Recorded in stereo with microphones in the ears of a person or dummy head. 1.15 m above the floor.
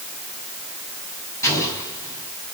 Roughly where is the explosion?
Centre.